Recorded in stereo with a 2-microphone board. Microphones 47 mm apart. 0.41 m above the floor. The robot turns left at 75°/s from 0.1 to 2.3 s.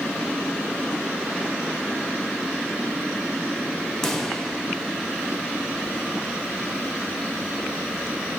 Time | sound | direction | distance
4.0 | a pop | 10° left (ahead or behind) | 1.3 m